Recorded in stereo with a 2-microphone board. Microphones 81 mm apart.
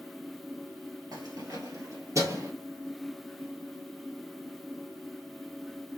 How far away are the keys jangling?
About 1.5 m.